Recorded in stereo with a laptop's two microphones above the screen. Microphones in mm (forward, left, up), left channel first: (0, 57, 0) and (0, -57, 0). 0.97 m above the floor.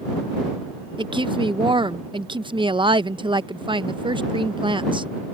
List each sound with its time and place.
1.0 s a woman speaking: 45° right (ahead or behind)